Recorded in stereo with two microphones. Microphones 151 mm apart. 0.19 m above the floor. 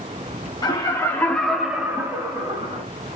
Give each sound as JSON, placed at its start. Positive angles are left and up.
{"t": 0.6, "sound": "laughter", "side_deg": 30, "distance_m": 2.0}